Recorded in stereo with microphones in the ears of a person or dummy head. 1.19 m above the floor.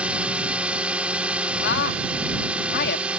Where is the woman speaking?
60° left (ahead or behind).